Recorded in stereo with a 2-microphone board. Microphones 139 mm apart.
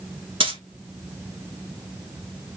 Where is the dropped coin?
40° right (ahead or behind), 1.0 m.